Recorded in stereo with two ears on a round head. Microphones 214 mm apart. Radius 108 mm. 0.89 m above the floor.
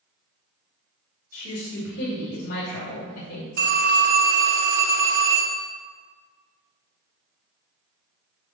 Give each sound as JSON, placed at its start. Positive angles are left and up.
{"t": 1.3, "sound": "a woman speaking", "side_deg": 40, "distance_m": 2.5}
{"t": 3.6, "sound": "a phone ringing", "side_deg": -40, "distance_m": 1.6}